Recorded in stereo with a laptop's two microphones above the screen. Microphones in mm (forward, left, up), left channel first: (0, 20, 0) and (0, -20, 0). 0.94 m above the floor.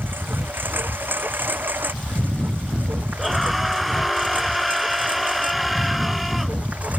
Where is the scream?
Centre (ahead or behind).